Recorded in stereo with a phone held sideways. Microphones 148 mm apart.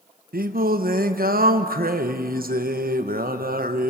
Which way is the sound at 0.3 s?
80° right.